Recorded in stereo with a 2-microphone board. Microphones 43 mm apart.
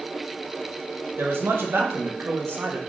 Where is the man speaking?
75° right (ahead or behind), 0.8 m.